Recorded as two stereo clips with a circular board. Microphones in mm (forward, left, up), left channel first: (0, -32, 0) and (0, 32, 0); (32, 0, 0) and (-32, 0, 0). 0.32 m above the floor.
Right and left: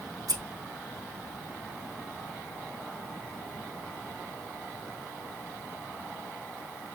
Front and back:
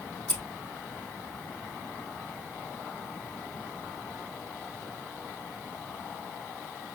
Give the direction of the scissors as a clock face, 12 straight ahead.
10 o'clock.